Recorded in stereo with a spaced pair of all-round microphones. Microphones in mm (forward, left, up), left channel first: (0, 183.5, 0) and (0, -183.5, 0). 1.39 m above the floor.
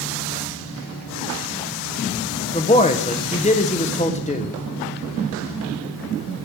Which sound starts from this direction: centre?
A man speaking, at 2.5 s.